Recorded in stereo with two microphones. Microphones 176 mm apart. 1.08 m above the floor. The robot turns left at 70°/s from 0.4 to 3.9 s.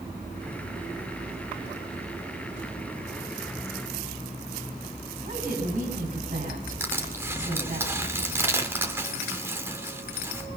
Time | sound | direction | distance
5.2 | a woman speaking | 55° right (ahead or behind) | 8 m
6.8 | crushing | 15° right (ahead or behind) | 2.5 m